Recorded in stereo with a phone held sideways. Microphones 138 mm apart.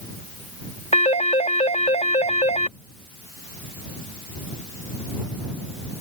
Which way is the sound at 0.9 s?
55° left (ahead or behind).